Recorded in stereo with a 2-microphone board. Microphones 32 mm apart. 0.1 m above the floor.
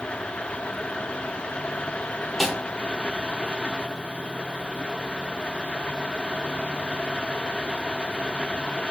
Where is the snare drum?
Centre (ahead or behind), 0.7 m.